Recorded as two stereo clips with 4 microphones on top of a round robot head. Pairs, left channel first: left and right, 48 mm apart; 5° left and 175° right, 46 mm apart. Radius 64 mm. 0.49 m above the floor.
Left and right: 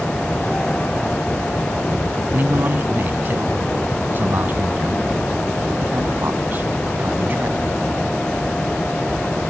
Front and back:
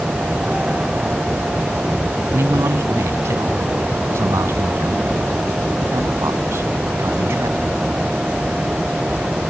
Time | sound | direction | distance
2.3 | a man speaking | 145° right | ?